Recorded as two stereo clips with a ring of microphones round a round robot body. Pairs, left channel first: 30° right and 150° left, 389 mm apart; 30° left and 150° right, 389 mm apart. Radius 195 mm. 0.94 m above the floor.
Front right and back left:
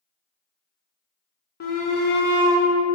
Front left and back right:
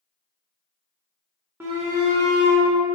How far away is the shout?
About 0.8 m.